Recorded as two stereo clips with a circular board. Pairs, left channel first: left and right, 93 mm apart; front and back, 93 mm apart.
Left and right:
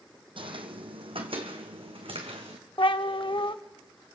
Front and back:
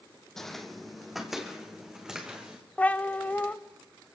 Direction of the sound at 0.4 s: 85° right.